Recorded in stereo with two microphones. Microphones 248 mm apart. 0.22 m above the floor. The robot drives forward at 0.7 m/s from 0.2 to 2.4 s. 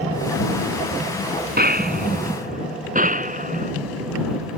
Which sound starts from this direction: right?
A gunshot, at 1.6 s.